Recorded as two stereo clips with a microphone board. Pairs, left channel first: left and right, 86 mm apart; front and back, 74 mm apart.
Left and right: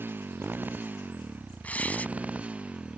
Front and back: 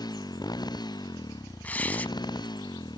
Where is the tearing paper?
40° left.